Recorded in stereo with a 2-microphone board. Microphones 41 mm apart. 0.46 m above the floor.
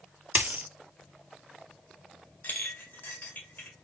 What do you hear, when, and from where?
0.3 s a dropped coin: 45° right (ahead or behind), 0.6 m
2.4 s a clink: 55° left (ahead or behind), 1.4 m